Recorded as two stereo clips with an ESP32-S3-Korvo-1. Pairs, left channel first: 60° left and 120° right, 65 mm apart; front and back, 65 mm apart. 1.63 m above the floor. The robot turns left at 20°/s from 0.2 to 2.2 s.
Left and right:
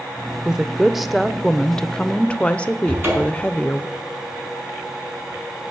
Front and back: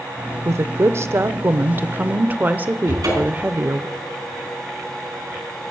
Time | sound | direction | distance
0.5 | a woman speaking | 165° left | 0.6 m
2.9 | a cupboard door | 175° right | 5 m